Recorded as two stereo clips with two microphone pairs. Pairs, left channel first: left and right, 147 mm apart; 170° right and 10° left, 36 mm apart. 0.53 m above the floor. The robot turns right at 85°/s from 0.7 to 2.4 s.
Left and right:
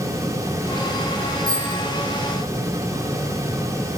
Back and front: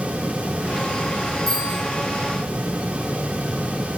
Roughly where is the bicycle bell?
Right.